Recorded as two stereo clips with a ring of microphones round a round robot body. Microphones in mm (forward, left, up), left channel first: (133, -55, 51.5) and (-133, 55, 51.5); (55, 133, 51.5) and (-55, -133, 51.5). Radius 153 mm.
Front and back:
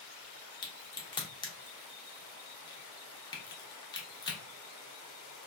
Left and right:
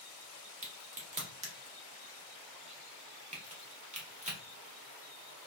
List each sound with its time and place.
0.6 s a crack: 80° right, 0.9 m